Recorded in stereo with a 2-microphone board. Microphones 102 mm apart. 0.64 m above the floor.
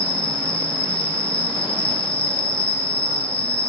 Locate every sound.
0.0 s an insect: 65° left (ahead or behind), 2 m